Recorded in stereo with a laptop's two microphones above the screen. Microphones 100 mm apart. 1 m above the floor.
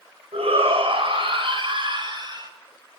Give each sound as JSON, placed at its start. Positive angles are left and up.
{"t": 0.3, "sound": "a shout", "side_deg": -75, "distance_m": 6.0}